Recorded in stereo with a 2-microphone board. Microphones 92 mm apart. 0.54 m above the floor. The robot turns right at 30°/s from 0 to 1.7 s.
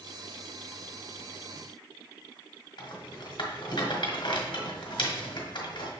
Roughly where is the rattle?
Left.